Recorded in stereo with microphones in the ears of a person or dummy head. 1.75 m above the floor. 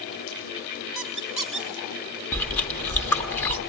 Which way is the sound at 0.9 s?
Centre (ahead or behind).